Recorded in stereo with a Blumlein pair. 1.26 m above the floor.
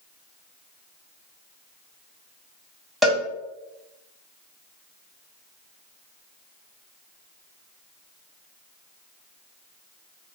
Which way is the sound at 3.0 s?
Straight ahead.